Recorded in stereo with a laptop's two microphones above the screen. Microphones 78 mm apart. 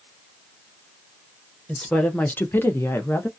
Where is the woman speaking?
10° left (ahead or behind), 0.8 m; by 3.3 s 30° left (ahead or behind), 0.7 m.